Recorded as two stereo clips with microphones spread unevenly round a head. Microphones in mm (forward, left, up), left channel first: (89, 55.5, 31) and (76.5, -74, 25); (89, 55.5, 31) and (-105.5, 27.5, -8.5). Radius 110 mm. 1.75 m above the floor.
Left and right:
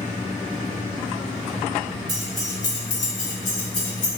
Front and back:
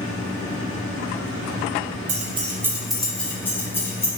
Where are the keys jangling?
130° right, 0.7 m; by 4.1 s 80° left, 2 m.